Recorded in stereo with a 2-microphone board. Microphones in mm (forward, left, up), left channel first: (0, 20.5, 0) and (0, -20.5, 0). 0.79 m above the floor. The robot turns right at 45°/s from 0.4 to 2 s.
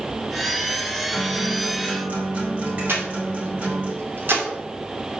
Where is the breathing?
65° right (ahead or behind), 2.5 m.